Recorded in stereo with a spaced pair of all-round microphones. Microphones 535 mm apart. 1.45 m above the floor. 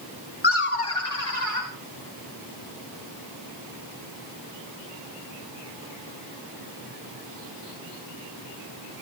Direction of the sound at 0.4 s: 55° left (ahead or behind).